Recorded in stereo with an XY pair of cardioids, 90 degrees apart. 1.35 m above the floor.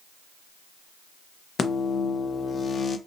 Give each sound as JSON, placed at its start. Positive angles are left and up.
{"t": 1.6, "sound": "a microwave", "azimuth_deg": 55, "distance_m": 0.5}